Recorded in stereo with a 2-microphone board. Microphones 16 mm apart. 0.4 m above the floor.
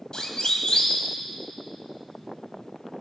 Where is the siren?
60° left (ahead or behind), 2 m.